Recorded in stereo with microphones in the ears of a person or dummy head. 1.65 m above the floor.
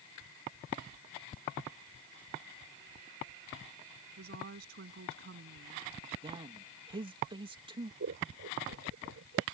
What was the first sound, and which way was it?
A woman speaking, 60° right (ahead or behind).